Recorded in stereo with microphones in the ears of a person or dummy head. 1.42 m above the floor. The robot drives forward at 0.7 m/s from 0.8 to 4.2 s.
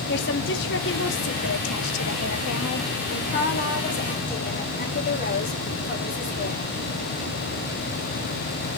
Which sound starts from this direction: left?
A woman speaking, at 0.1 s.